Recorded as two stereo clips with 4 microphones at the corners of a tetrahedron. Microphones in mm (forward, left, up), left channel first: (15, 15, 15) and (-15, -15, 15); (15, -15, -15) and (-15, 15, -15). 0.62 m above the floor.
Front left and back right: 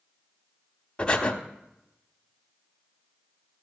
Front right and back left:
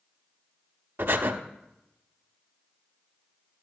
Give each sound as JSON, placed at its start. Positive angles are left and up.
{"t": 1.0, "sound": "breathing", "azimuth_deg": 115, "distance_m": 0.9}